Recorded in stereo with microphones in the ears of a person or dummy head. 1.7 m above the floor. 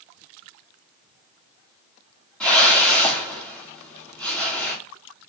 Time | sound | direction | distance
2.4 | a whoosh | 5° left (ahead or behind) | 1.6 m